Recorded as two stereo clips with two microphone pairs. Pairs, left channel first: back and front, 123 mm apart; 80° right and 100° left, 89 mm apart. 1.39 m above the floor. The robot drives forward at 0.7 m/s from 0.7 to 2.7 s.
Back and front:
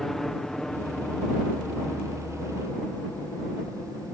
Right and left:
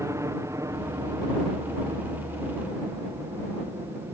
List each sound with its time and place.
0.0 s a helicopter: 95° left; by 4.2 s 105° left